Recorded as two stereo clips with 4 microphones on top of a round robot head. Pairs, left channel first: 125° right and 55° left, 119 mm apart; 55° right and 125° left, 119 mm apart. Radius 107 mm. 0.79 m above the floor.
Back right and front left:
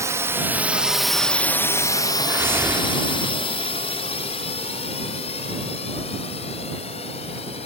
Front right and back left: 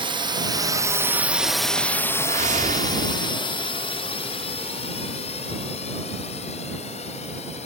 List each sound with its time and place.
0.0 s a drone: 110° left; by 7.7 s 85° right
2.2 s a whoosh: 125° left